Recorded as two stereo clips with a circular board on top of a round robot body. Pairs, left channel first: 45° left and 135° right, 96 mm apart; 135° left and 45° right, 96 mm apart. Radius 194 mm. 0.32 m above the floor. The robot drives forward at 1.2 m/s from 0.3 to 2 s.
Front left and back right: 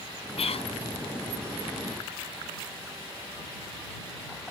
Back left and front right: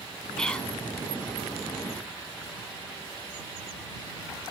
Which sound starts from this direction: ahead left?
Whispering, at 0.4 s.